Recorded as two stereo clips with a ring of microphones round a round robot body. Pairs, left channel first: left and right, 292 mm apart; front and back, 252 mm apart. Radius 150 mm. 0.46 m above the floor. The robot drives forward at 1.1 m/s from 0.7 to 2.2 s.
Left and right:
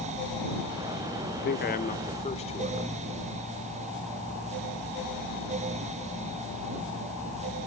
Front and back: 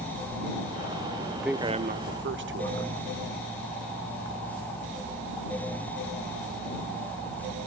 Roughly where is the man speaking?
Left.